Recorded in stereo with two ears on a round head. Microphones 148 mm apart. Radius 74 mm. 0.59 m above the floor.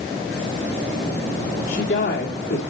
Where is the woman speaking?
50° left (ahead or behind), 1.3 m.